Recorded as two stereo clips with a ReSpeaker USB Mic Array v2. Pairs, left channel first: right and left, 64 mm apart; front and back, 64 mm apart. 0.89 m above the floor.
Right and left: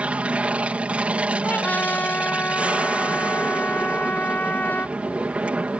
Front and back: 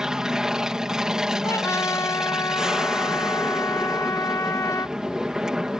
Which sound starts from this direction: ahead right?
A trumpet, at 1.4 s.